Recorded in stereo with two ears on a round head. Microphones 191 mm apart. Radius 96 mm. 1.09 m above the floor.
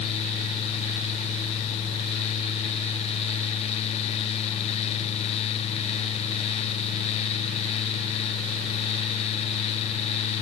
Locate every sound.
Only background noise.